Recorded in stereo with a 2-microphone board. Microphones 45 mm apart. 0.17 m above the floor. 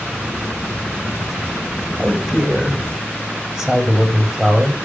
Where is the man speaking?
15° right (ahead or behind), 8 m.